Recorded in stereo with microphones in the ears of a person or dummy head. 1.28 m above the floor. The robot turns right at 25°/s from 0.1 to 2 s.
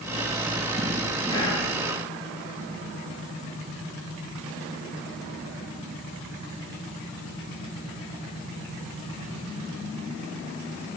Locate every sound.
1.3 s whispering: 20° left (ahead or behind), 0.7 m; by 1.7 s 25° left (ahead or behind), 0.7 m